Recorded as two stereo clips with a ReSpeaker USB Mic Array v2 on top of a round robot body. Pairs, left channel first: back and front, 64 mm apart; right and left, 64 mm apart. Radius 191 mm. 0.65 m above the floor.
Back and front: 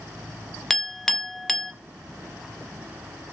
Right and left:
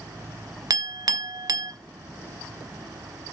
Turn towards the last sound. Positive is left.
turn(degrees=95)